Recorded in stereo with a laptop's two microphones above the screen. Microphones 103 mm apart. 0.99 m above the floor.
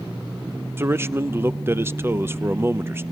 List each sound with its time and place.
0.8 s a man speaking: 25° right (ahead or behind), 0.6 m